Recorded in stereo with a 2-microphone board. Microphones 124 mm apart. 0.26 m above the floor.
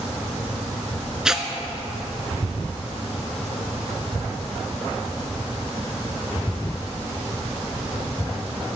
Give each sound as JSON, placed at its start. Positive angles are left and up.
{"t": 1.2, "sound": "tearing paper", "side_deg": -5, "distance_m": 0.7}